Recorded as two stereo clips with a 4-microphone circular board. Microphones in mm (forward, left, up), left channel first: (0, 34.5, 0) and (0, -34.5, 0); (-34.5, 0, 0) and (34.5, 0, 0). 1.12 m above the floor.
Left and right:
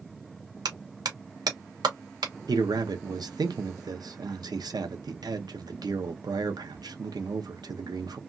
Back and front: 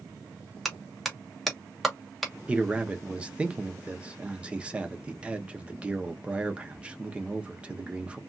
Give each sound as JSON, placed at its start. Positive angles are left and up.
{"t": 0.7, "sound": "a clap", "azimuth_deg": -90, "distance_m": 1.1}
{"t": 2.5, "sound": "a man speaking", "azimuth_deg": -75, "distance_m": 0.7}